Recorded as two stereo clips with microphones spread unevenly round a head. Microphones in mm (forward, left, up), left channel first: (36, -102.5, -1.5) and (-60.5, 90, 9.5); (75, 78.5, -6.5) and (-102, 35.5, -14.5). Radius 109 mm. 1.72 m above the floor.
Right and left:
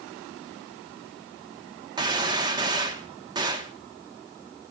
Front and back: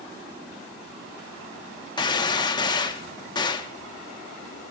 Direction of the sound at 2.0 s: 60° left.